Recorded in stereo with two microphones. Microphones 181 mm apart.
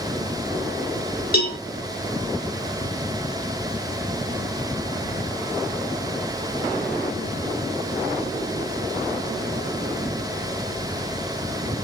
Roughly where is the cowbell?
Left.